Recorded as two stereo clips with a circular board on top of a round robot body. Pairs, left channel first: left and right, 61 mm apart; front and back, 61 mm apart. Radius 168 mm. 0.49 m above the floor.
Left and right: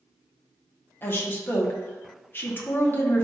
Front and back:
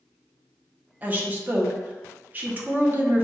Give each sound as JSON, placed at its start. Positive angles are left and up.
{"t": 1.0, "sound": "a woman speaking", "azimuth_deg": 130, "distance_m": 1.3}